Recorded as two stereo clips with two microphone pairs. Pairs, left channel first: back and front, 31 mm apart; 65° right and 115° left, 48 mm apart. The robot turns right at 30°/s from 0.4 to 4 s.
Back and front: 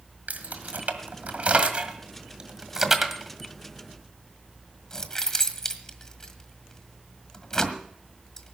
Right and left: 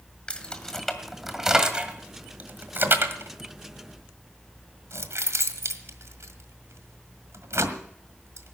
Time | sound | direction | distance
0.3 | keys jangling | straight ahead | 1.6 m